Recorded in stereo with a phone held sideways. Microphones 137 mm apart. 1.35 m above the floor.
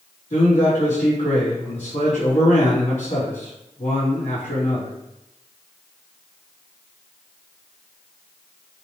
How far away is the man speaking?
About 4 m.